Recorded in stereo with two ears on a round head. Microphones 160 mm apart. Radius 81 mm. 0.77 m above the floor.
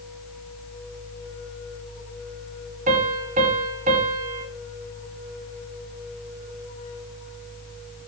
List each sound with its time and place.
2.9 s a piano: 45° right (ahead or behind), 6.5 m